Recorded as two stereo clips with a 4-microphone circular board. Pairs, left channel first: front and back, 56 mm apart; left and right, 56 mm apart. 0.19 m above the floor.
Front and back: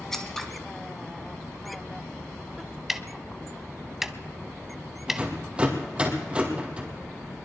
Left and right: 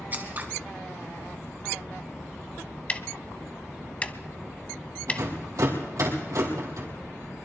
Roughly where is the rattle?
Right.